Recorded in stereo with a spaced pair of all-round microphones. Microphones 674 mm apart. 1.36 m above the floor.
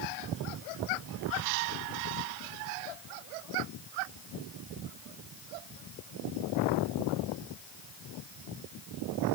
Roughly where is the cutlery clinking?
I don't hear cutlery clinking.